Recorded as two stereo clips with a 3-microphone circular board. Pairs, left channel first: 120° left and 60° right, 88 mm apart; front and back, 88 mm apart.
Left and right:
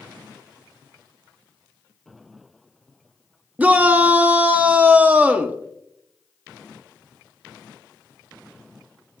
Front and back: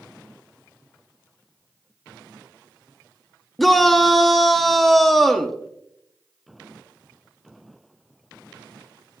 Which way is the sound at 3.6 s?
80° right.